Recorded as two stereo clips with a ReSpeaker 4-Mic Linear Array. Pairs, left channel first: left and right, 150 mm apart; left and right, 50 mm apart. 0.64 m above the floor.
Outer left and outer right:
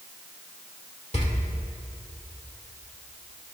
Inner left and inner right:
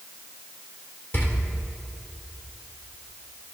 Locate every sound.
1.1 s a door slam: 45° left (ahead or behind), 1.7 m